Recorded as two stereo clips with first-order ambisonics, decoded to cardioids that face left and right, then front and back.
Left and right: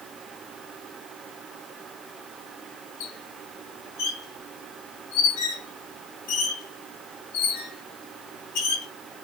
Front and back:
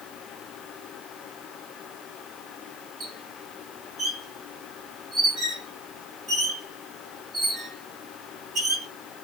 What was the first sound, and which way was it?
A squeak, 105° left.